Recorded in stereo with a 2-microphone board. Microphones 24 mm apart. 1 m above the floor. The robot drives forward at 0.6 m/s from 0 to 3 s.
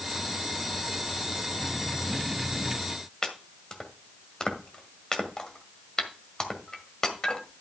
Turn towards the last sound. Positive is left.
turn(degrees=30)  # may be behind; listen again after turning